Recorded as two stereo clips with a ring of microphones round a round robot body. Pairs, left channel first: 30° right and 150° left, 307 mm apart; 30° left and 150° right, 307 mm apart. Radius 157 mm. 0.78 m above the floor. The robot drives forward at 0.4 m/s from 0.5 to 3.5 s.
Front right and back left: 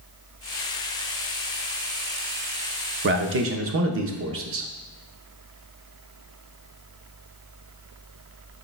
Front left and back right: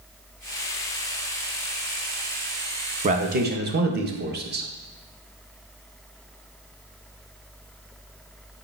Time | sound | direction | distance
3.0 | a man speaking | 160° left | 0.6 m